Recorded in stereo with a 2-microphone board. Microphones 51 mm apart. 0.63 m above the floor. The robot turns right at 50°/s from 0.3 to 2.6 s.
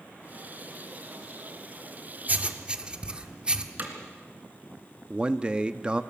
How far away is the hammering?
About 3 m.